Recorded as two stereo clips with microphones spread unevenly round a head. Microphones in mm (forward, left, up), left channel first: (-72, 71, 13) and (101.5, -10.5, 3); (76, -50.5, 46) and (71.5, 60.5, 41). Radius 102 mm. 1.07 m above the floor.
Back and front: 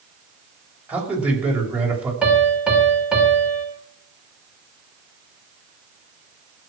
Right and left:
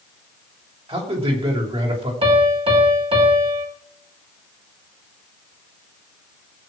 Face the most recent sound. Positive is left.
turn(degrees=60)